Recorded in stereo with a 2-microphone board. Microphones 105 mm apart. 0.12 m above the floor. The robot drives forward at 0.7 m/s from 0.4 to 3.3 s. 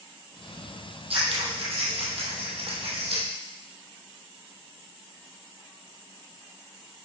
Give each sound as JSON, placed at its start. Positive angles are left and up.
{"t": 1.1, "sound": "scissors", "side_deg": -70, "distance_m": 2.5}